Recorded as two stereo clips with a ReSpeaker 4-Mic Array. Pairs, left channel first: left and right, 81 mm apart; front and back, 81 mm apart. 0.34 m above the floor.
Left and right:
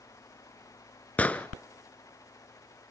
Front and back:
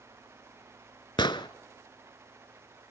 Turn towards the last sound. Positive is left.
turn(degrees=15)